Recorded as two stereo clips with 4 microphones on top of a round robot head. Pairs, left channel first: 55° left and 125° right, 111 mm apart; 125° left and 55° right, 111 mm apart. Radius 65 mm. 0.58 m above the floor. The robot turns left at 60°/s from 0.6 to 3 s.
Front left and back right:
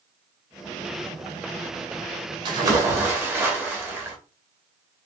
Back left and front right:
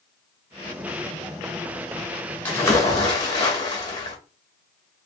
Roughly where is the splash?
Behind.